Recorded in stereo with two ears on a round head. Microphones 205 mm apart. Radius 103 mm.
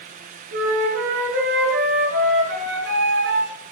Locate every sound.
0.5 s a flute: 55° right (ahead or behind), 7.5 m